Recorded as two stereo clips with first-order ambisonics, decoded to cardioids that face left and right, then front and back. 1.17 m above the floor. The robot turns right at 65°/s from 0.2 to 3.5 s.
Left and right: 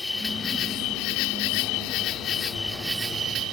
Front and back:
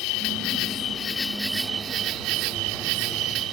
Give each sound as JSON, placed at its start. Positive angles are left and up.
{"t": 0.0, "sound": "an insect", "azimuth_deg": 10}